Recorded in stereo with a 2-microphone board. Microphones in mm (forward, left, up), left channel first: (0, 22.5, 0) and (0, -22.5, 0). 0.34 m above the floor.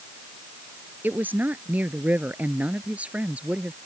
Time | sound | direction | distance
1.0 | a woman speaking | 45° right (ahead or behind) | ?